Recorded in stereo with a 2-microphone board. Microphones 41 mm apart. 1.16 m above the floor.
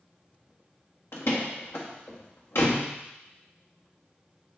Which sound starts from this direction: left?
A door slam, at 1.1 s.